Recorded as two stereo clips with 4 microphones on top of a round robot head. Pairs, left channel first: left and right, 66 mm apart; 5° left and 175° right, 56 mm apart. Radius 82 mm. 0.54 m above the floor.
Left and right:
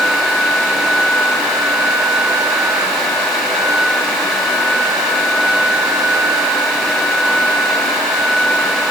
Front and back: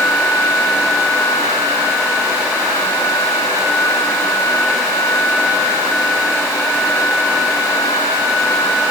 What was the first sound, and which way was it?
Only background noise.